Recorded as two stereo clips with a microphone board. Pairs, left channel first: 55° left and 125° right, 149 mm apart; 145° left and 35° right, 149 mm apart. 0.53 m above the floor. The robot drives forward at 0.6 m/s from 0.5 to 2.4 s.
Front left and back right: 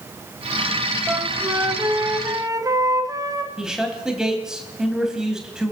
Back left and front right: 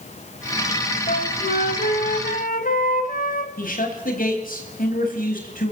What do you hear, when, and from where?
1.1 s a flute: 160° left, 1.1 m; by 3.5 s 165° left, 1.8 m
3.6 s a man speaking: 150° left, 4 m